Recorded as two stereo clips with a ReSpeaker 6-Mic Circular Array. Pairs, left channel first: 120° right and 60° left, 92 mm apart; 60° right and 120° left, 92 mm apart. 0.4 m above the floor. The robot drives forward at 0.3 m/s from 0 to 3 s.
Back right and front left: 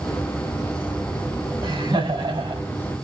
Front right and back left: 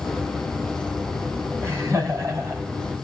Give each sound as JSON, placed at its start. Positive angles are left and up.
{"t": 1.6, "sound": "laughter", "azimuth_deg": 65, "distance_m": 3.0}